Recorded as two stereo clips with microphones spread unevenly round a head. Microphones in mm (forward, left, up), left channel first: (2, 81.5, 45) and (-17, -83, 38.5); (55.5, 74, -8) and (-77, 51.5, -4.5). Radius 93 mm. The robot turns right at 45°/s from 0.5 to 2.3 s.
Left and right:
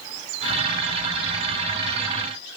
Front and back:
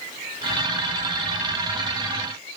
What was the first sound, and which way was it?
Only background noise.